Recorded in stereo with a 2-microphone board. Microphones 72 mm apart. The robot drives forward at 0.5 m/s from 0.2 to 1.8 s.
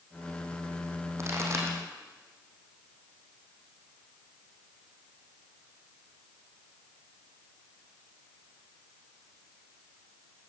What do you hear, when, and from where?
1.2 s a pop: 40° right (ahead or behind), 5 m